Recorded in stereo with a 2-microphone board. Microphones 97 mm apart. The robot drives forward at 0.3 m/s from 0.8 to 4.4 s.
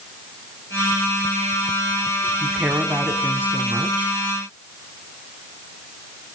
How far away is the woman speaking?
About 2.0 m.